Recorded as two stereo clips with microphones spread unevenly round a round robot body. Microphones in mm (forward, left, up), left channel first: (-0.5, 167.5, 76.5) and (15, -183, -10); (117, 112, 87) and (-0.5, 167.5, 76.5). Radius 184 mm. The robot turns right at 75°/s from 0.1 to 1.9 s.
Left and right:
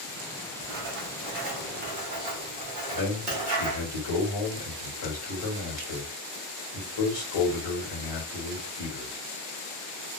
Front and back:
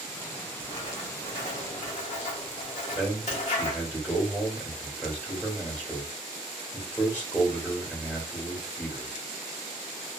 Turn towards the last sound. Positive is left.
turn(degrees=55)